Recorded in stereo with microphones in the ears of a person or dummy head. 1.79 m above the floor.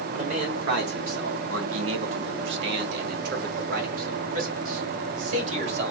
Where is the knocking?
No knocking in this recording.